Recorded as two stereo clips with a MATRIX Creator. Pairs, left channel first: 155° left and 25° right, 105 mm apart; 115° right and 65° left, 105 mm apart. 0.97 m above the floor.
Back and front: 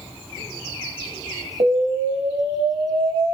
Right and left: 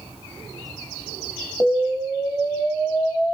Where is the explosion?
25° right, 3 m.